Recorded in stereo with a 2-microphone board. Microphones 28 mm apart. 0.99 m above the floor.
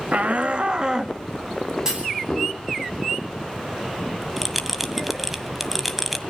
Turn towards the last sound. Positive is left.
turn(degrees=-5)  # may be behind; listen again after turning